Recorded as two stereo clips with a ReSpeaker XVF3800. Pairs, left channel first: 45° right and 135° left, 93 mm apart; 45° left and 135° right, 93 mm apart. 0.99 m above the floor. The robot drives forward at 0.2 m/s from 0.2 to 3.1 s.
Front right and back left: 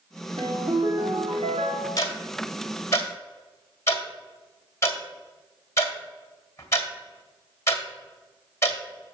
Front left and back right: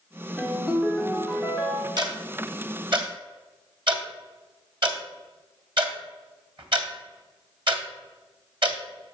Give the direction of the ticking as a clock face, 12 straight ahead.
3 o'clock.